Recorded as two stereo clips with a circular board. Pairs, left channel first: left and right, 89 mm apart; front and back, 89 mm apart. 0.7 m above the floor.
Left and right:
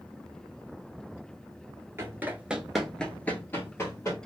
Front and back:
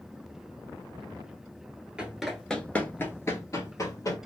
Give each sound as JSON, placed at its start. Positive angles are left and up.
{"t": 2.0, "sound": "running footsteps", "azimuth_deg": -110, "distance_m": 0.7}